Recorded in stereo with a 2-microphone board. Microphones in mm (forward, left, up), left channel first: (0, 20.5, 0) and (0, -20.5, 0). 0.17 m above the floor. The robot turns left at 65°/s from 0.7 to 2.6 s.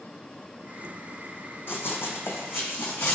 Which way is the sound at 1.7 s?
70° left (ahead or behind).